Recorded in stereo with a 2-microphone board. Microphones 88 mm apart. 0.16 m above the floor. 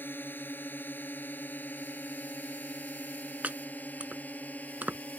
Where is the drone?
25° left (ahead or behind); by 5.2 s 20° left (ahead or behind).